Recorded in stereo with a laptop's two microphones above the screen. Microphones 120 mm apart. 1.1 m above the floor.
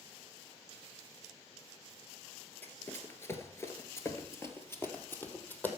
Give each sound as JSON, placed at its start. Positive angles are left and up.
{"t": 2.6, "sound": "running footsteps", "side_deg": 15, "distance_m": 1.4}